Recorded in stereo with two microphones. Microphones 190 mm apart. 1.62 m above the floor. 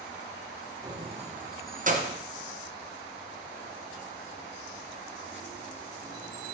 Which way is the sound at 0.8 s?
20° right (ahead or behind).